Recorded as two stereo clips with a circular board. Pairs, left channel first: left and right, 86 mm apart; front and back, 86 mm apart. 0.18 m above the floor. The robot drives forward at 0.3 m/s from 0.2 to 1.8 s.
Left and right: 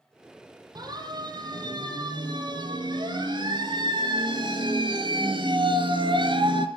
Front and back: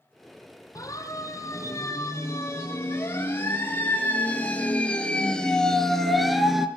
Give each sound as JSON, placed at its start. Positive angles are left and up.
{"t": 0.8, "sound": "a siren", "azimuth_deg": -50, "distance_m": 6.5}